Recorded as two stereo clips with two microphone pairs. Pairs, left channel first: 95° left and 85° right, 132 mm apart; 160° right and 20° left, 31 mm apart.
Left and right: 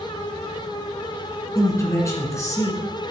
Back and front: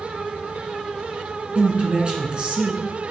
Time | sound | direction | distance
1.6 | a man speaking | 45° left | 1.9 m